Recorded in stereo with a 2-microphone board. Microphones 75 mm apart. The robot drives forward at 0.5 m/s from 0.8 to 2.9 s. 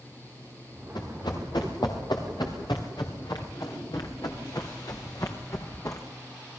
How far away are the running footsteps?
About 5 m.